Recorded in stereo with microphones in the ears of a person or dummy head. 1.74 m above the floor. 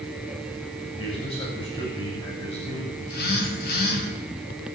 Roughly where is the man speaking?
Left.